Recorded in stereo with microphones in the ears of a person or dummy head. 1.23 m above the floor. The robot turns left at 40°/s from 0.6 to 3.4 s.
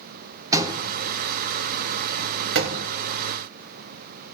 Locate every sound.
0.5 s a door slam: 20° right (ahead or behind), 1.9 m; by 2.9 s 65° right (ahead or behind), 1.9 m